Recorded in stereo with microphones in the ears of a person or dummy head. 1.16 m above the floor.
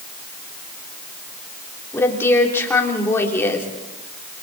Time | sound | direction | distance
1.9 | a woman speaking | 15° left (ahead or behind) | 3.5 m